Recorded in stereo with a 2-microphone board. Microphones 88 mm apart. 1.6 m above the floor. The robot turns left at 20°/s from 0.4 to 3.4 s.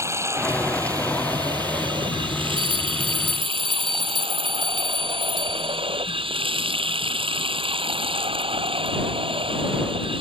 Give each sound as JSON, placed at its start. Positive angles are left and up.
{"t": 0.0, "sound": "running water", "azimuth_deg": -30}
{"t": 2.6, "sound": "a bell", "side_deg": -75}